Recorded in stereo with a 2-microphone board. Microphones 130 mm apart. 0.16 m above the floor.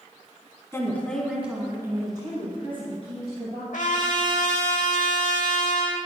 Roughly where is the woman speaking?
Left.